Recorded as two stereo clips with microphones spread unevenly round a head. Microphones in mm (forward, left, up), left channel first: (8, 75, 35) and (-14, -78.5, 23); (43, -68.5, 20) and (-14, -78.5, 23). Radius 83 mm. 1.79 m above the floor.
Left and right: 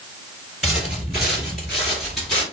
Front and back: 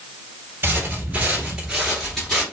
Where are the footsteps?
Straight behind, 2 m; by 2.4 s 30° left, 1.7 m.